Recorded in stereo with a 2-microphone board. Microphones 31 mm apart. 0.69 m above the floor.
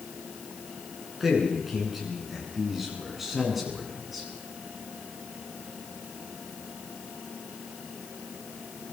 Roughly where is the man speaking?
Centre.